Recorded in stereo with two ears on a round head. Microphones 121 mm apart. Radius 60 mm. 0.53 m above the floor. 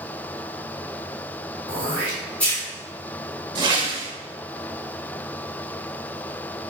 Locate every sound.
1.7 s throat clearing: 10° left (ahead or behind), 1.8 m
3.5 s a whoosh: 35° right (ahead or behind), 0.6 m